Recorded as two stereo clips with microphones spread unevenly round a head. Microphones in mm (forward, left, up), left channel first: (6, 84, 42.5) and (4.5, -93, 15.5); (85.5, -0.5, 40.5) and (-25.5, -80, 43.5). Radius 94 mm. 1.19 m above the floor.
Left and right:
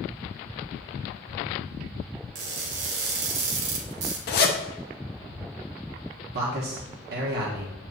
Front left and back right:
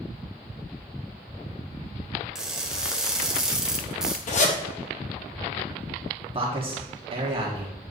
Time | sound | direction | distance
2.4 | crushing | 60° right | 1.5 m
4.3 | a zipper | 60° left | 1.0 m
6.3 | a man speaking | 100° right | 1.4 m